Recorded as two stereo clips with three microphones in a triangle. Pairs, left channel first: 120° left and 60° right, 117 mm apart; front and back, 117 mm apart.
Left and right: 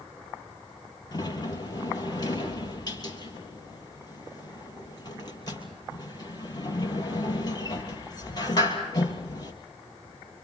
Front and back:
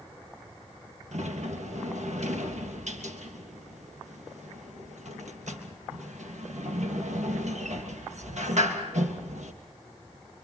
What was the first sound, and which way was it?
A sliding door, 175° left.